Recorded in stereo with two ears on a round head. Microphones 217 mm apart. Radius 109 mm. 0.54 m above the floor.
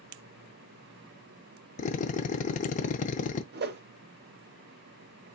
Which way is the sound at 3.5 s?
45° right (ahead or behind).